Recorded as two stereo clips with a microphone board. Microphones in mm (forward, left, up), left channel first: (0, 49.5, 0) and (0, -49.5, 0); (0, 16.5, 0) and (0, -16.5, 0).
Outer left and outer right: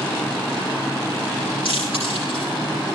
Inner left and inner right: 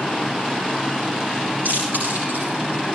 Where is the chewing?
75° right (ahead or behind), 10 m.